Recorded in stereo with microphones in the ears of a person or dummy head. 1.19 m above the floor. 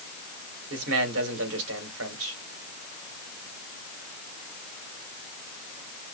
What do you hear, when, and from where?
0.7 s a man speaking: 75° right (ahead or behind), 4 m